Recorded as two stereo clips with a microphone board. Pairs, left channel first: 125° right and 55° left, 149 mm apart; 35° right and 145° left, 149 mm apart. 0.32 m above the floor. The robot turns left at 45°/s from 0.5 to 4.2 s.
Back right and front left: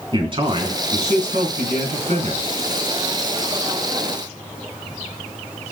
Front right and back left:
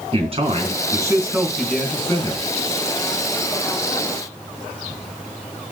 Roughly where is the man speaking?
Left.